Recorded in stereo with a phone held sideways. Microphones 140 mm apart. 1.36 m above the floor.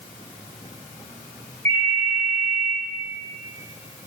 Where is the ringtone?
55° right (ahead or behind), 1.6 m.